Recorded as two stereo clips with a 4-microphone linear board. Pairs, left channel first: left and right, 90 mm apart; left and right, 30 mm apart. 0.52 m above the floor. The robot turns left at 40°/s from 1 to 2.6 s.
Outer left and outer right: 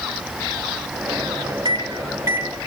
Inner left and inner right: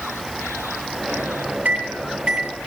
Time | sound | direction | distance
1.6 | a microwave | 50° right (ahead or behind) | 2 m